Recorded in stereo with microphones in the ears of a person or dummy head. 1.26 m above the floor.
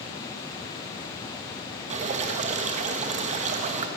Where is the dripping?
35° right (ahead or behind), 1.4 m.